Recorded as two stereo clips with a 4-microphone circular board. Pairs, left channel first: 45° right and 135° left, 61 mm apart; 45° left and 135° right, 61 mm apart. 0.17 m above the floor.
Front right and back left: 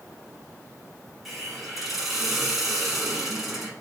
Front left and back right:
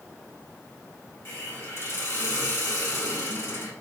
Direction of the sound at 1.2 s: 50° left.